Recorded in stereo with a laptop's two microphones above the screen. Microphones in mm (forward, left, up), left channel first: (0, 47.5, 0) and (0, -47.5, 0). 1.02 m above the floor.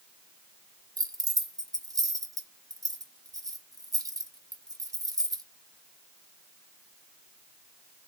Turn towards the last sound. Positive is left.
turn(degrees=-40)  # may be behind; listen again after turning